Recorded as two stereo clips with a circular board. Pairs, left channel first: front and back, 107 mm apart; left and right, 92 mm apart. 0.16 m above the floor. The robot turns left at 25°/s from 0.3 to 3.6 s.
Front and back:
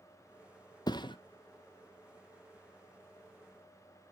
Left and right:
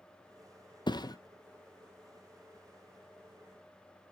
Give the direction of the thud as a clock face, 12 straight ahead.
10 o'clock.